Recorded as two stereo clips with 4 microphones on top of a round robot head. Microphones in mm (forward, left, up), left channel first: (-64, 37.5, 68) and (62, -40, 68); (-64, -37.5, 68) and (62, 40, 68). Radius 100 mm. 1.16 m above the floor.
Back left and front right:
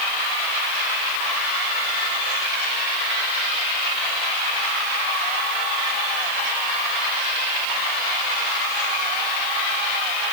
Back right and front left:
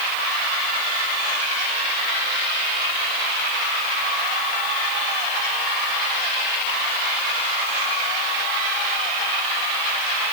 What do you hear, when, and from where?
Only background noise.